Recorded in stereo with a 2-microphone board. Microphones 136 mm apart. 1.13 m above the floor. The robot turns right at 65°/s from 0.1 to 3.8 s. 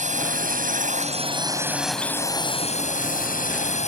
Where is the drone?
115° right; by 3.9 s 125° left.